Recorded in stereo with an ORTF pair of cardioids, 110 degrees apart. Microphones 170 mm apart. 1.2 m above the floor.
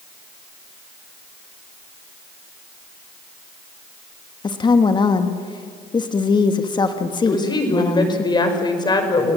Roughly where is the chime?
No chime in this recording.